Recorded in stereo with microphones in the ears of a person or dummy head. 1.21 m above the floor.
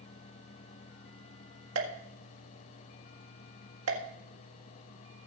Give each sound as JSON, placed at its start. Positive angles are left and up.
{"t": 1.8, "sound": "a pop", "side_deg": -85, "distance_m": 1.8}